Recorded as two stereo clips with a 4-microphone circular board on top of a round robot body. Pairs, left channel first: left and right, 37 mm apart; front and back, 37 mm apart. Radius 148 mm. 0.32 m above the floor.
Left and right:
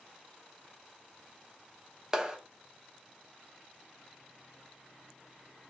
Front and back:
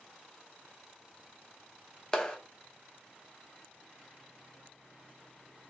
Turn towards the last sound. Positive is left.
turn(degrees=-45)